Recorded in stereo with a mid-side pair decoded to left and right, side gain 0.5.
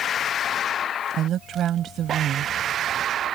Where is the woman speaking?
60° right.